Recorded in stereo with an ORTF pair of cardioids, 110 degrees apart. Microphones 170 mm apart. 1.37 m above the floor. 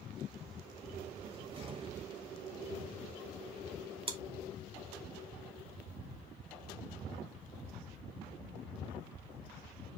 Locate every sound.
1.2 s a cupboard door: 35° right, 1.1 m
4.1 s chewing: 35° right, 1.5 m